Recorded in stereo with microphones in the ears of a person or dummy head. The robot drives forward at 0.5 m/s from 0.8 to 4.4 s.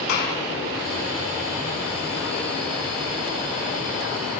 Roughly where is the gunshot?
Left.